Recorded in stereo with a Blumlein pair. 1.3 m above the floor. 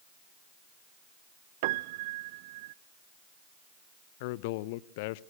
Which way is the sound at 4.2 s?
50° left.